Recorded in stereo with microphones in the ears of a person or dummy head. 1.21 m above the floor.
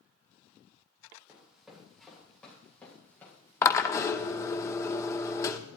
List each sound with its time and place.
1.3 s running footsteps: 5° right (ahead or behind), 4 m; by 4.6 s 20° left (ahead or behind), 6 m
3.6 s a drill: 20° left (ahead or behind), 1.0 m